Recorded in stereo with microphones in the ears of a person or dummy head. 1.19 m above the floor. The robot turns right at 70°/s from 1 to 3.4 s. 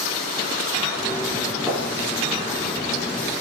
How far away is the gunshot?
About 9.5 m.